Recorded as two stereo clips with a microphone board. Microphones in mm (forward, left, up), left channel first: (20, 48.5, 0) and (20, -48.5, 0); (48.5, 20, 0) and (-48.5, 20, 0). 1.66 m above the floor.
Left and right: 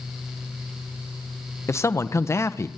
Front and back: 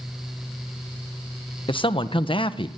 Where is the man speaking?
30° left, 1.5 m.